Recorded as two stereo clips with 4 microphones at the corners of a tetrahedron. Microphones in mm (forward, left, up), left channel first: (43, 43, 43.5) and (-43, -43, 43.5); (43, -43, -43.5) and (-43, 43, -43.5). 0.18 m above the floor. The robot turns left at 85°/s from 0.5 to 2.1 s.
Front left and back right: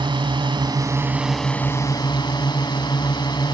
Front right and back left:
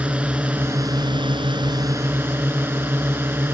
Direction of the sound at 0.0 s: 150° right.